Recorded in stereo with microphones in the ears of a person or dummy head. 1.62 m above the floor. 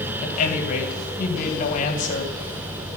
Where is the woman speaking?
45° left (ahead or behind), 2.5 m.